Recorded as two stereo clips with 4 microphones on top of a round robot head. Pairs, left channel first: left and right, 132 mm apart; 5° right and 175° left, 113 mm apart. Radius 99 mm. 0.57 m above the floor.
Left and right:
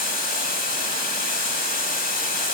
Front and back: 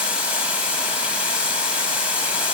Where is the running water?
95° left, 2.5 m.